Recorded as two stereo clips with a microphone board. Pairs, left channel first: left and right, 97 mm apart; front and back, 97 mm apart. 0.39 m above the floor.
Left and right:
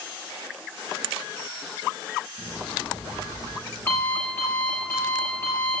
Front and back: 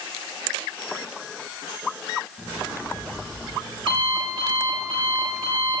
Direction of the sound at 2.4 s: 155° left.